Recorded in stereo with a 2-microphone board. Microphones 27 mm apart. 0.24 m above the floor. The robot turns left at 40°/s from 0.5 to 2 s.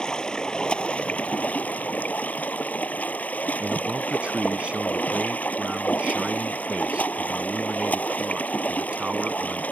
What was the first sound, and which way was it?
Running water, 145° left.